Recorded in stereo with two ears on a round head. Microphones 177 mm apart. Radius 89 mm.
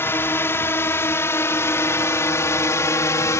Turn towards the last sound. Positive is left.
turn(degrees=15)  # may be behind; listen again after turning